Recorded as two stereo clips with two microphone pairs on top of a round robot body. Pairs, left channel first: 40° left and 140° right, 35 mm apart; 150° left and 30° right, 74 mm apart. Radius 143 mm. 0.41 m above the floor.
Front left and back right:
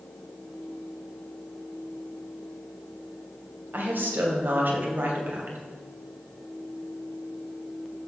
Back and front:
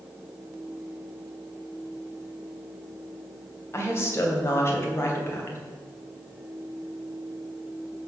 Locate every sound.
3.7 s a woman speaking: 160° right, 2.5 m